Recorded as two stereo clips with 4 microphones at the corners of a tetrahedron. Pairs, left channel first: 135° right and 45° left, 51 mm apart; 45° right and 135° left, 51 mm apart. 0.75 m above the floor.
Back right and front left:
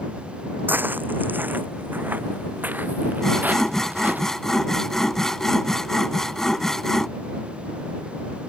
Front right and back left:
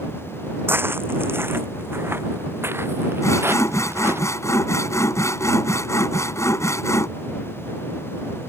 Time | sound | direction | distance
0.7 | footsteps | 95° left | ?
3.2 | sawing | 55° right | ?